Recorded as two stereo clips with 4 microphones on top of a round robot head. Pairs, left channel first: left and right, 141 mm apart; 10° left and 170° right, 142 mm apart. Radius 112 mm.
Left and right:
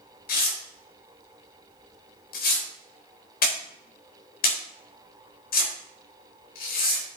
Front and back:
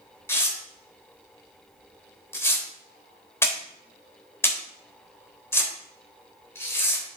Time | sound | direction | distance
0.3 | tearing paper | 80° left | 3 m